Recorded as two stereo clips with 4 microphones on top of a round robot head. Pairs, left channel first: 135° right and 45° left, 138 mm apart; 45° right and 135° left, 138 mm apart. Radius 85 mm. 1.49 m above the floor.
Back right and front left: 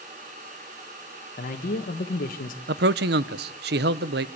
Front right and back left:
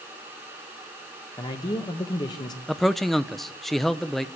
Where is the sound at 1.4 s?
105° right, 1.6 m.